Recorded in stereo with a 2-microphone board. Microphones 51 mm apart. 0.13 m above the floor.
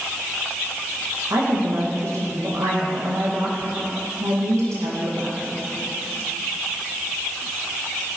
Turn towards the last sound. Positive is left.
turn(degrees=-70)  # may be behind; listen again after turning